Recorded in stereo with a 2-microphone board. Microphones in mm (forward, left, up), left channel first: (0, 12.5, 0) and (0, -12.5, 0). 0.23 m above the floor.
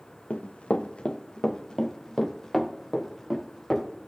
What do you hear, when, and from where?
0.3 s running footsteps: 75° left (ahead or behind), 1.9 m; by 3.9 s centre (ahead or behind), 4.5 m